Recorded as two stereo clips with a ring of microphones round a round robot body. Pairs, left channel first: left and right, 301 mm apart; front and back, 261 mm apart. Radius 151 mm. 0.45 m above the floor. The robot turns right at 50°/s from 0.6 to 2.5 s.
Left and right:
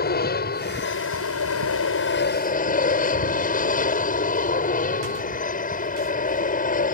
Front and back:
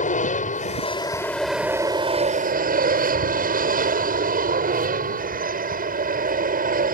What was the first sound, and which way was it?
An aircraft, 45° left.